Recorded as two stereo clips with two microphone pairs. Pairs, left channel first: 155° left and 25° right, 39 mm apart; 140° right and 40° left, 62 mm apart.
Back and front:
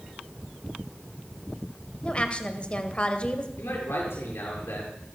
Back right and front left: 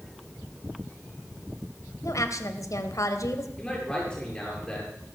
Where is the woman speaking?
145° right, 2.0 m.